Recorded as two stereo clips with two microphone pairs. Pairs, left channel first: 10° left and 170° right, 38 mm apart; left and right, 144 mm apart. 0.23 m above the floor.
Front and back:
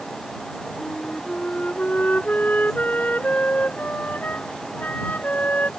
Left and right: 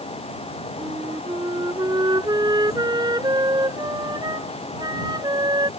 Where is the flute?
35° right.